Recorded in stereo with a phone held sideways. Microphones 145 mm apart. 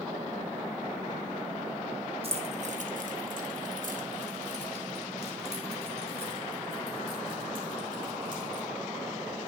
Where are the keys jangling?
45° right (ahead or behind), 1.0 m; by 8.7 s 35° right (ahead or behind), 3.5 m.